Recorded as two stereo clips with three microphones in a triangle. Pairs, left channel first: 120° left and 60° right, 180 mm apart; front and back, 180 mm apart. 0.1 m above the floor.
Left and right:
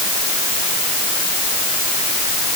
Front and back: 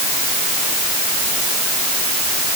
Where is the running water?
I don't hear running water.